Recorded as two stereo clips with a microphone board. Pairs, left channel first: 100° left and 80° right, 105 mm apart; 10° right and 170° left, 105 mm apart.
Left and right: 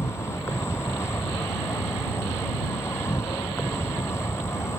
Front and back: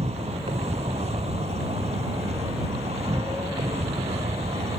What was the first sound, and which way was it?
An insect, 165° left.